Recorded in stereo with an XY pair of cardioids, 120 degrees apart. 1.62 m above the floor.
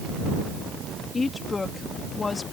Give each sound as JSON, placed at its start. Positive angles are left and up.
{"t": 1.1, "sound": "a woman speaking", "azimuth_deg": 30}